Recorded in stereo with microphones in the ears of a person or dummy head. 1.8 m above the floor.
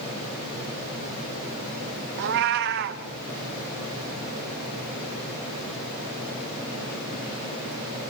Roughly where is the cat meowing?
Right.